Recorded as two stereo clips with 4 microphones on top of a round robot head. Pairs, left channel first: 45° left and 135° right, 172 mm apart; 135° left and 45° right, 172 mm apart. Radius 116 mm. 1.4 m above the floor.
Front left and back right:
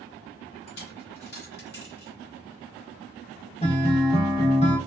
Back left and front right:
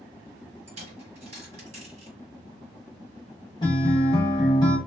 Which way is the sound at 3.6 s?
80° left.